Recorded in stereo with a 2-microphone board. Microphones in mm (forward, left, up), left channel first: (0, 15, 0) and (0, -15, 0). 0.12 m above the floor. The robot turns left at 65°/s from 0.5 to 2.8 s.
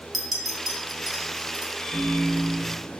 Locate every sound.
0.1 s a clink: centre (ahead or behind), 0.8 m; by 1.7 s 25° right (ahead or behind), 0.8 m
1.8 s a microwave: 55° left, 1.8 m; by 3.0 s 10° right, 1.8 m